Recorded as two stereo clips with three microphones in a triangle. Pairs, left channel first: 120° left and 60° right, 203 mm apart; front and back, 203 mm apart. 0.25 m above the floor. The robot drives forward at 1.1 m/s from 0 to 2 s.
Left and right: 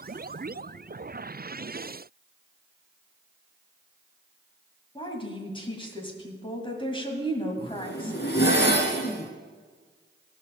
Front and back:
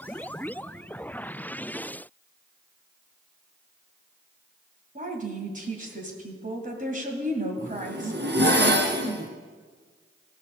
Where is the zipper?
150° left, 1.6 m.